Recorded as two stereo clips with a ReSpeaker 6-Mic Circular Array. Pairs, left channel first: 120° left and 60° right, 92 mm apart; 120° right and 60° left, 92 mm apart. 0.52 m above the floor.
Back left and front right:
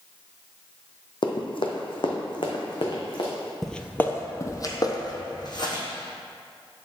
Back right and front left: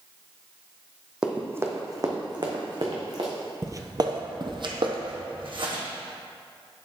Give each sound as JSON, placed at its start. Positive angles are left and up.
{"t": 1.2, "sound": "running footsteps", "azimuth_deg": 140, "distance_m": 1.0}
{"t": 3.6, "sound": "footsteps", "azimuth_deg": 35, "distance_m": 0.5}